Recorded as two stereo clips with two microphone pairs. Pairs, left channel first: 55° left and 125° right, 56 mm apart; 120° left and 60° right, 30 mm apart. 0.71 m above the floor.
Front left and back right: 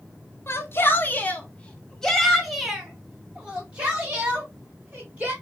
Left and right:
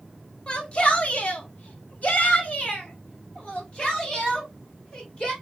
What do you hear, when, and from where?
0.5 s a shout: 75° left, 1.1 m; by 5.3 s 170° left, 2.5 m